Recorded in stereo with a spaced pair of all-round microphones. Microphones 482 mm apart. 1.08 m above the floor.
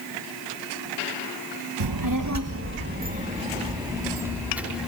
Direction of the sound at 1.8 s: 55° right (ahead or behind).